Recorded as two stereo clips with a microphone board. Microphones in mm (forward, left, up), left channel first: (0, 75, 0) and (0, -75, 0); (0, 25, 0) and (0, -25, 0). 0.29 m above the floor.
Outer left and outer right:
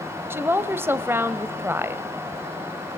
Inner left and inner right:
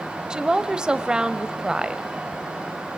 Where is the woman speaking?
15° right (ahead or behind), 1.1 m.